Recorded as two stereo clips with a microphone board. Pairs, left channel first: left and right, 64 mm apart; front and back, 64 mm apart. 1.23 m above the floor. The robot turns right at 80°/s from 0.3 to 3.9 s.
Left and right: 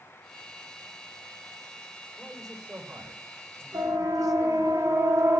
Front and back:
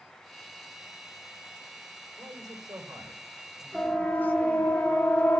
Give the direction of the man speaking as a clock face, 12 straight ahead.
7 o'clock.